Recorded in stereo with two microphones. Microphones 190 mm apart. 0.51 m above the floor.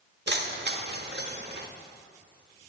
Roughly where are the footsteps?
No footsteps in this recording.